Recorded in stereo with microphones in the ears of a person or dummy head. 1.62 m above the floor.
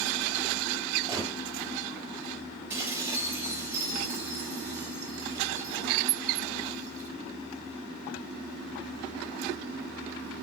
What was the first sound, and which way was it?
A gunshot, 25° right (ahead or behind).